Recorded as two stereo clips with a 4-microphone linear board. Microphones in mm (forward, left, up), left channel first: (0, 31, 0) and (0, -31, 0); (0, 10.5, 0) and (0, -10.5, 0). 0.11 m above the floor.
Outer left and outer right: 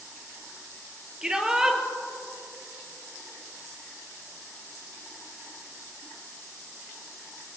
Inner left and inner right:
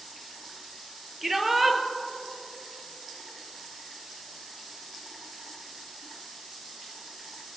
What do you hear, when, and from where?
1.2 s a shout: 10° right (ahead or behind), 2 m